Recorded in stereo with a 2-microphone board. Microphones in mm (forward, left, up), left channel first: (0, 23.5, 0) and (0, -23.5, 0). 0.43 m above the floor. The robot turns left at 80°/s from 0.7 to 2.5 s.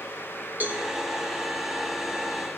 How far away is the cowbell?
About 1.7 m.